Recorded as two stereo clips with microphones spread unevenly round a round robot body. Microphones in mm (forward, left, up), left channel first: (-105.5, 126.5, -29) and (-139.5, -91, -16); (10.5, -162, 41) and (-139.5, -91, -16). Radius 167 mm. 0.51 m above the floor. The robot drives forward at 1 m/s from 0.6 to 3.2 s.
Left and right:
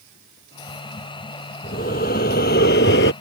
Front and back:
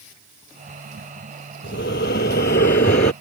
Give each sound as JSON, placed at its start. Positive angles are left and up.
{"t": 1.6, "sound": "breathing", "azimuth_deg": 15}